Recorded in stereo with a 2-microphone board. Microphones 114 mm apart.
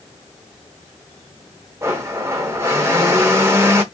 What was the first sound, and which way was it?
A blender, 25° right (ahead or behind).